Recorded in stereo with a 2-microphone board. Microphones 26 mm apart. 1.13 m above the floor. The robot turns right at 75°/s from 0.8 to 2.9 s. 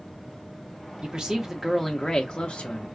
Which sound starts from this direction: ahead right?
A man speaking, at 1.0 s.